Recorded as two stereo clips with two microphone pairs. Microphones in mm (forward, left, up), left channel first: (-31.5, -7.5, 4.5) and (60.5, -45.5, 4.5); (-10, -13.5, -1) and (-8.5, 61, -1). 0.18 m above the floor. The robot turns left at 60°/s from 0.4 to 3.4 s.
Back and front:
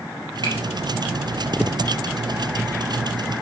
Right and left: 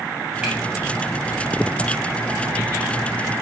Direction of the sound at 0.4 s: 15° left.